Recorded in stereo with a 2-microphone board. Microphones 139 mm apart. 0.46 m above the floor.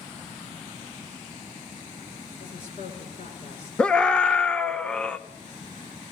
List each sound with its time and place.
2.4 s a woman speaking: 50° left (ahead or behind), 8.5 m
3.8 s a scream: 5° left (ahead or behind), 0.9 m